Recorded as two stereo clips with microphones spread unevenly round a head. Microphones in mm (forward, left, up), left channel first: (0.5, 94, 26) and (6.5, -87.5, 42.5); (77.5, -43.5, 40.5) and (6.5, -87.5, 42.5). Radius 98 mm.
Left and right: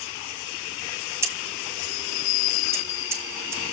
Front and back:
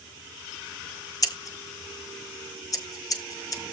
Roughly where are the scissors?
Ahead.